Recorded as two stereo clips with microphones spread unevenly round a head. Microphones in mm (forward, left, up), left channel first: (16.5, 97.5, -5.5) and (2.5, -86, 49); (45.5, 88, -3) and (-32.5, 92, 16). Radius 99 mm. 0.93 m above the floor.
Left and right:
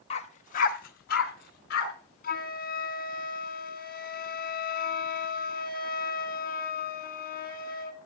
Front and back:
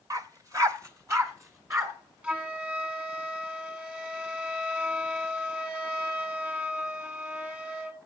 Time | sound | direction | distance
0.1 | a dog barking | 155° left | 1.1 m
2.2 | a flute | 105° left | 1.9 m